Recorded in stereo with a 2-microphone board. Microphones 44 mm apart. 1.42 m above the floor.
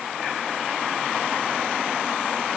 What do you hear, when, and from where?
Only background noise.